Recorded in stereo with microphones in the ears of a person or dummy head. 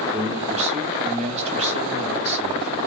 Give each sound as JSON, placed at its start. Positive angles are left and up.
{"t": 0.1, "sound": "a man speaking", "side_deg": -35, "distance_m": 1.1}